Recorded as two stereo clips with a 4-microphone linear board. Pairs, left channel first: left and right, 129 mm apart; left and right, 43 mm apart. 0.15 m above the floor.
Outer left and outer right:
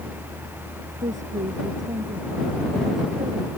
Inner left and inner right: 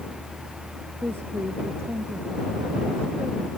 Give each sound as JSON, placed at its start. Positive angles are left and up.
{"t": 1.0, "sound": "a woman speaking", "side_deg": -75}